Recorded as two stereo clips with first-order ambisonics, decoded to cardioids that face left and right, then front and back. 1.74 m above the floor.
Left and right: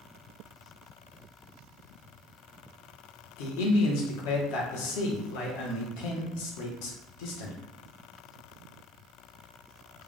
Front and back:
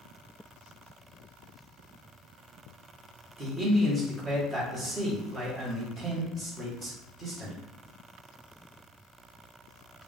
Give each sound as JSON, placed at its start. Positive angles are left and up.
{"t": 3.4, "sound": "a man speaking", "azimuth_deg": 100, "distance_m": 1.2}